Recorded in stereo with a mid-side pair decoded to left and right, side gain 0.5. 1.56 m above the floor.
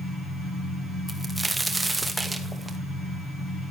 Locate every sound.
1.1 s a crack: 10° right, 2 m